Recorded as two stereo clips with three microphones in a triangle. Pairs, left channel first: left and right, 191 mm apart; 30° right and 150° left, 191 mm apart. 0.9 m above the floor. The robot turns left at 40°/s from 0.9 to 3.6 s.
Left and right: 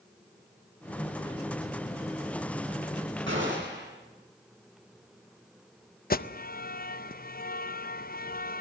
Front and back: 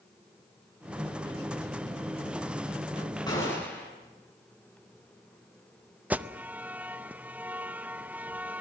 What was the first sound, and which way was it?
A gunshot, 100° right.